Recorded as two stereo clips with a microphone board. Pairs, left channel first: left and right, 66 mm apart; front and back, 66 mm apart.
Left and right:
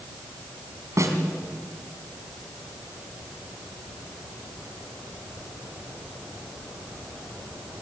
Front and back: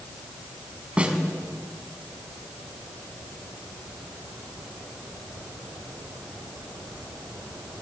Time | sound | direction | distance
1.0 | a snare drum | 110° right | 3 m